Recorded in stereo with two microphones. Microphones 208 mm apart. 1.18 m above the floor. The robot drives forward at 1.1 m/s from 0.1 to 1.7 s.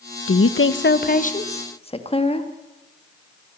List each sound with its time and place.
0.3 s a woman speaking: 75° left (ahead or behind), 0.8 m; by 2.5 s 30° left (ahead or behind), 1.6 m